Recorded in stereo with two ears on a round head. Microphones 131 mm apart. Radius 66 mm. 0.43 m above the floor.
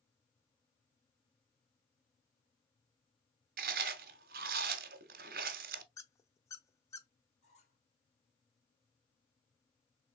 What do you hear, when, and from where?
3.6 s chewing: 70° right (ahead or behind), 1.0 m
6.0 s a squeak: 20° left (ahead or behind), 0.6 m
7.4 s a squeak: 50° left (ahead or behind), 1.8 m